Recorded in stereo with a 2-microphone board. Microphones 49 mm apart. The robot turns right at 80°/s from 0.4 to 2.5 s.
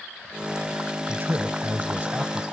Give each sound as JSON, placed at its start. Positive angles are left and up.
{"t": 1.1, "sound": "a man speaking", "azimuth_deg": -135, "distance_m": 1.5}